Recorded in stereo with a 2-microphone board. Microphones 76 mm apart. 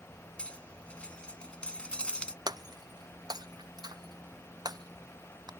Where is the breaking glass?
65° right (ahead or behind).